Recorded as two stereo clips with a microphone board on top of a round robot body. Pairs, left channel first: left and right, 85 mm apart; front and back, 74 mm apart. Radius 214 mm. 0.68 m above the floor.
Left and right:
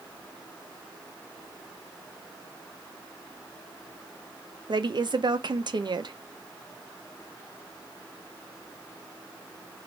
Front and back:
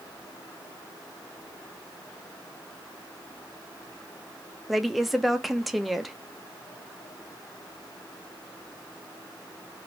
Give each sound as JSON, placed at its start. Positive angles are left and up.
{"t": 4.7, "sound": "a woman speaking", "azimuth_deg": -90, "distance_m": 1.0}